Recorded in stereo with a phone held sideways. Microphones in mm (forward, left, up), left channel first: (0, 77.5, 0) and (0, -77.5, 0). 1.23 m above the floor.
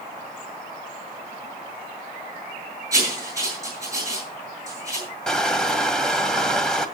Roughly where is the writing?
Centre.